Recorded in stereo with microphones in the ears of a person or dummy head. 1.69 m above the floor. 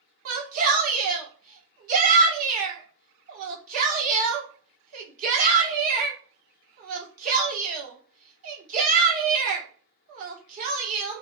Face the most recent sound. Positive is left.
turn(degrees=-50)  # may be behind; listen again after turning